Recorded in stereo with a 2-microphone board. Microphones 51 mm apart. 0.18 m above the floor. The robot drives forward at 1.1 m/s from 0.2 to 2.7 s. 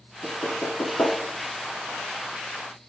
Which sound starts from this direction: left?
Knocking, at 0.2 s.